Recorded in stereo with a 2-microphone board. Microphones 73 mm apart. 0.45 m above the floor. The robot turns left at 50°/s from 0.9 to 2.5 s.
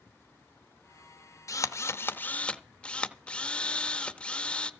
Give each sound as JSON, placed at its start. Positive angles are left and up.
{"t": 1.5, "sound": "a drill", "azimuth_deg": 70, "distance_m": 0.7}